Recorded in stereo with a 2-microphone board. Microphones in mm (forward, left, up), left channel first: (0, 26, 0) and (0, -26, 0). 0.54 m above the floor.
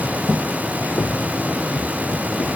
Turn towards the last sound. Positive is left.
turn(degrees=65)  # may be behind; listen again after turning